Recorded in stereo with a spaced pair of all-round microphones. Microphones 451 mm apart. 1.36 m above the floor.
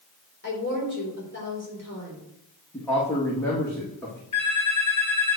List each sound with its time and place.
0.4 s a woman speaking: 25° left (ahead or behind), 3.5 m
2.7 s a man speaking: 5° left (ahead or behind), 1.9 m
4.3 s a phone ringing: 40° left (ahead or behind), 4.5 m